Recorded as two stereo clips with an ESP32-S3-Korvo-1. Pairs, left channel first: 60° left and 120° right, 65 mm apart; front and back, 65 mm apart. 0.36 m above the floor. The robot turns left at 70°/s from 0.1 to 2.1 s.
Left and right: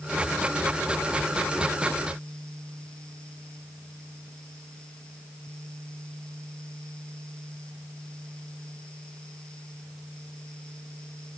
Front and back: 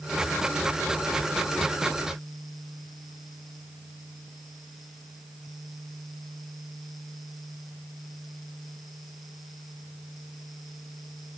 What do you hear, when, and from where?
Only background noise.